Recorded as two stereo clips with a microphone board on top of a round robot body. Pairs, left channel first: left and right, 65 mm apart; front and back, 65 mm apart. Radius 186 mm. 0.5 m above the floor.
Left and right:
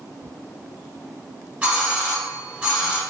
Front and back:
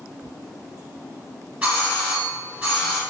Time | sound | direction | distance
1.6 | a doorbell | 140° right | 1.6 m